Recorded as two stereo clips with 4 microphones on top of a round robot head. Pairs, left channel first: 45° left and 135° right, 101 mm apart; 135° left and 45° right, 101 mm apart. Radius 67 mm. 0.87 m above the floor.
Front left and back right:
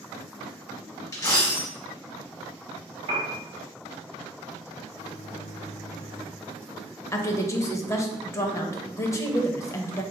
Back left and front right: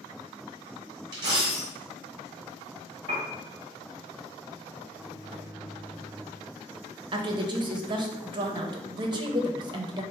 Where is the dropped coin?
5° right, 0.9 m.